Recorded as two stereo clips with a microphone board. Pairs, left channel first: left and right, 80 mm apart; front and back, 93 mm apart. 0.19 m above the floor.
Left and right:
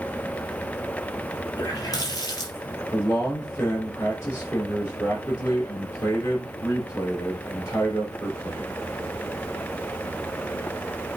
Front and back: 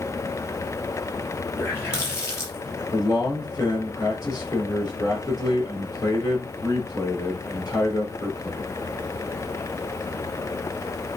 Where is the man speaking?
45° left, 5 m.